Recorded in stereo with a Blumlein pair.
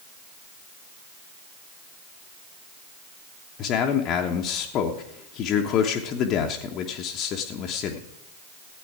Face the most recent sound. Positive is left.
turn(degrees=35)